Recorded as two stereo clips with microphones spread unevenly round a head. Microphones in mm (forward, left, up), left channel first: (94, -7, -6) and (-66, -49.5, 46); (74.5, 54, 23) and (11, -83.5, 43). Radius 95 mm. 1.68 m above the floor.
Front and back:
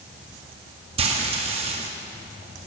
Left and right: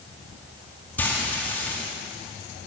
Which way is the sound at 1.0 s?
150° left.